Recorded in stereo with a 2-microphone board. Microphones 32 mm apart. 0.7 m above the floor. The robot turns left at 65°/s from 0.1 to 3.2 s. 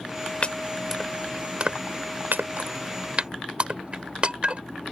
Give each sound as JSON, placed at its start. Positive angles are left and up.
{"t": 0.4, "sound": "chopping", "side_deg": 40}